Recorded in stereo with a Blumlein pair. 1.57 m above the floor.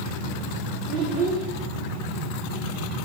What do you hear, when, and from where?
0.9 s a child speaking: 40° right, 4 m